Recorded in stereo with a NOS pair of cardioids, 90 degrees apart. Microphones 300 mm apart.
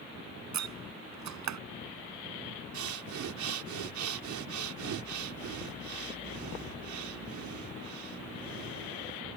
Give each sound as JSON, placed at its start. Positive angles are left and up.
{"t": 0.5, "sound": "a door slam", "azimuth_deg": -65}
{"t": 2.7, "sound": "breathing", "azimuth_deg": -70}